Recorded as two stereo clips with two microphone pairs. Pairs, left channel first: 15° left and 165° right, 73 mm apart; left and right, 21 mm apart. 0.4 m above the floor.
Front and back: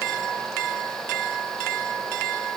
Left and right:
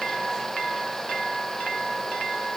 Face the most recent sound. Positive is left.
No sound to turn to.